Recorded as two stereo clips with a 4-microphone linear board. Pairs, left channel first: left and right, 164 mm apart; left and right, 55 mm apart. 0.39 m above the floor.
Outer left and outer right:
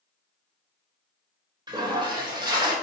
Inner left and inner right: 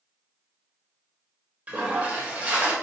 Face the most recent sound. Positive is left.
turn(degrees=-25)  # may be behind; listen again after turning